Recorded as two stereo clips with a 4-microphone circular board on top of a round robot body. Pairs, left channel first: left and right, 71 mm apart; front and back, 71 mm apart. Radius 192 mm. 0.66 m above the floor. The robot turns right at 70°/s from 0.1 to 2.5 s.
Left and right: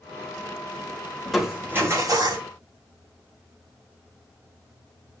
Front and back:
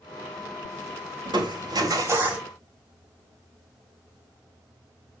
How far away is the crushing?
About 4 m.